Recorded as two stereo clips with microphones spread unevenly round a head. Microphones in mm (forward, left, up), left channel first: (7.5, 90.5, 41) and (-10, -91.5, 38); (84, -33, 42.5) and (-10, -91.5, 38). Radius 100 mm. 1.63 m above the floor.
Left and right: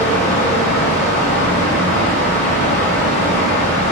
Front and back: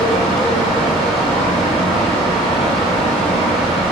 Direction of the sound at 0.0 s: 130° left.